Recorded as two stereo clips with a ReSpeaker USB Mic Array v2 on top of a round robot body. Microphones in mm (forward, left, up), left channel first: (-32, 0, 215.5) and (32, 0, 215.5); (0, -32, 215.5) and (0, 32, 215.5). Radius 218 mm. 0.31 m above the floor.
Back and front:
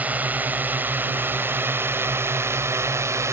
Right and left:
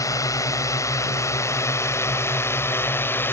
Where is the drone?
65° right; by 3.3 s 35° right.